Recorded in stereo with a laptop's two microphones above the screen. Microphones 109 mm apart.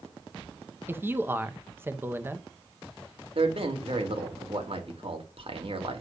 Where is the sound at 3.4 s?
60° right (ahead or behind), 2 m.